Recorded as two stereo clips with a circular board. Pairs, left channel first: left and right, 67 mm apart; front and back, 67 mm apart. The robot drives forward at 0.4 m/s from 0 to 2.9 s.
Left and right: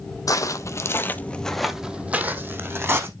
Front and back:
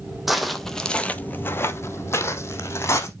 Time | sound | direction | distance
0.3 | footsteps | 90° left | 0.8 m